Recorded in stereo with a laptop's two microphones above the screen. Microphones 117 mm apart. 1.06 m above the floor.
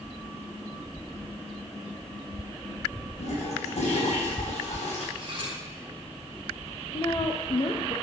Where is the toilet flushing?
75° left (ahead or behind), 4 m.